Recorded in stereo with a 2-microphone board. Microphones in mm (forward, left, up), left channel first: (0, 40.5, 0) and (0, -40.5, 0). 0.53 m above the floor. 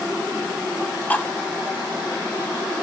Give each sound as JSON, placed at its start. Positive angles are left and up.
{"t": 1.1, "sound": "cutlery clinking", "side_deg": 20, "distance_m": 0.7}